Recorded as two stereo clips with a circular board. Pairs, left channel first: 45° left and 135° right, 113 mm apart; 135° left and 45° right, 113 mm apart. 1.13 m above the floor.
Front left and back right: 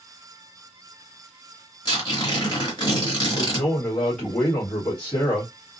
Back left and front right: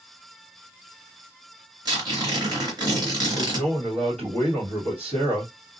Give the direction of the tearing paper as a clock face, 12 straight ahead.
12 o'clock.